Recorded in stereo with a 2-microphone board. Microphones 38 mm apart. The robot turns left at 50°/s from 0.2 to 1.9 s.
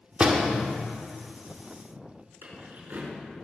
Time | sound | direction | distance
0.2 | a door slam | 35° right (ahead or behind) | 1.8 m
2.4 | keys jangling | 70° right (ahead or behind) | 5.5 m